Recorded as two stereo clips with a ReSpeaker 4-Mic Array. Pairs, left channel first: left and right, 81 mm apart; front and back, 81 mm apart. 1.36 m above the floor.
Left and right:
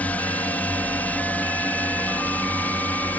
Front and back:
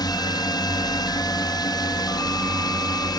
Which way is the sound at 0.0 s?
20° left.